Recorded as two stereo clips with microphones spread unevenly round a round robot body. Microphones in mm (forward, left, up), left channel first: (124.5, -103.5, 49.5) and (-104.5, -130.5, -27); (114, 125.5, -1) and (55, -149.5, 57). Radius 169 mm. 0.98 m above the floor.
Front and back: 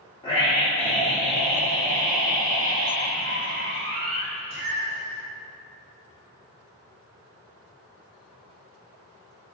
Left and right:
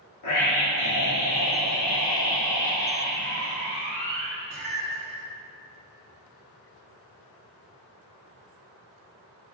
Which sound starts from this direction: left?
A scream, at 0.2 s.